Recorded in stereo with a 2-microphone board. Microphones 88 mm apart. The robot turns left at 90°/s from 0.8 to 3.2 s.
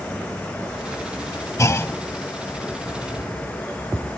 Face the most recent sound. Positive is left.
turn(degrees=-75)